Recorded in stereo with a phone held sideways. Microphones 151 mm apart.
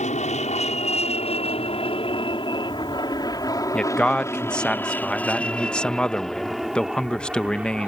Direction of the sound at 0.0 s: 50° left (ahead or behind).